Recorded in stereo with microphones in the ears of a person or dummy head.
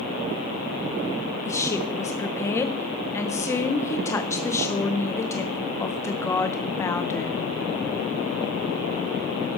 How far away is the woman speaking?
About 0.9 m.